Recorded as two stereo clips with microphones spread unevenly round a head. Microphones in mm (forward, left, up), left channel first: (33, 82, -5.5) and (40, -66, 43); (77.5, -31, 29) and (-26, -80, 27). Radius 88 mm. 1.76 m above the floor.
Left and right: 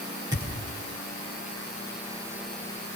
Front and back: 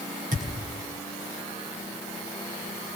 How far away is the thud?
About 10 m.